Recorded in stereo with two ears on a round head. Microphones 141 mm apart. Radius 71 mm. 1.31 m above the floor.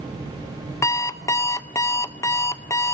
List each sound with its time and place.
0.8 s an alarm clock: 20° left (ahead or behind), 1.0 m